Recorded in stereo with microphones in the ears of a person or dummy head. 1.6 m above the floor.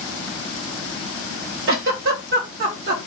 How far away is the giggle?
About 1.0 m.